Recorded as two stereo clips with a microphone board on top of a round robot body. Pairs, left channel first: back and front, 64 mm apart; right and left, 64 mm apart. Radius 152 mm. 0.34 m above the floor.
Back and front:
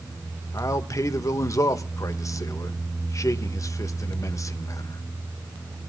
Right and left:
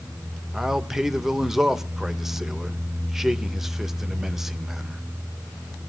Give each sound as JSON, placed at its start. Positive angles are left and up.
{"t": 0.5, "sound": "a man speaking", "azimuth_deg": 170, "distance_m": 2.0}